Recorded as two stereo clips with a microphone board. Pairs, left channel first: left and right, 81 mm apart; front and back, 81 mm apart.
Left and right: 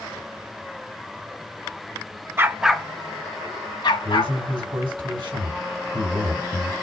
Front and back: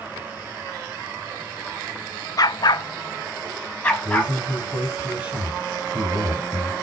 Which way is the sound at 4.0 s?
110° right.